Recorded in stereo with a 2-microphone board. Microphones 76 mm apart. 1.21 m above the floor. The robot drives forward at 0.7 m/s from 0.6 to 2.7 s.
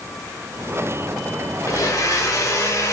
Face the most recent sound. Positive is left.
turn(degrees=45)  # may be behind; listen again after turning